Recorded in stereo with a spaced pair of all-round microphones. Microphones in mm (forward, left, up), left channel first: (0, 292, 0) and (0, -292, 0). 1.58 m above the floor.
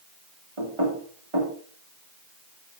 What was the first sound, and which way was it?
Knocking, 60° right (ahead or behind).